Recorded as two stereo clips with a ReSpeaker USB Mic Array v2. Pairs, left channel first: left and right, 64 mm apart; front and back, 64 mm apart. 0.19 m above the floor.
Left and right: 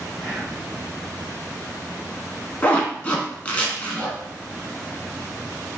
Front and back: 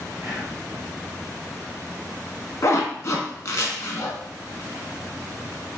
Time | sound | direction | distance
0.2 | whispering | 170° left | 1.7 m
2.6 | a zipper | 25° left | 0.6 m